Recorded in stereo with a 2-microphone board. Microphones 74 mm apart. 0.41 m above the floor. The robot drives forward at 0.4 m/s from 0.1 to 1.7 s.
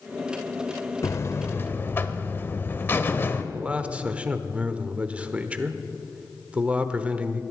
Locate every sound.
1.0 s a buzzer: 40° left (ahead or behind), 0.5 m; by 3.4 s 30° left (ahead or behind), 0.7 m
3.5 s a man speaking: 20° right (ahead or behind), 0.8 m